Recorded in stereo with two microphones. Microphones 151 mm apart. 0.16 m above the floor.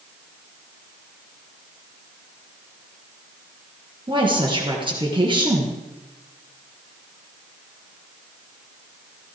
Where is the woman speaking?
30° right (ahead or behind), 3.5 m.